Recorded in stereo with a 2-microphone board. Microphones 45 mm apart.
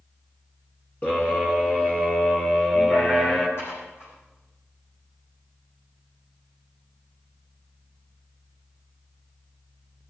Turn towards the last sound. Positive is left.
turn(degrees=70)  # may be behind; listen again after turning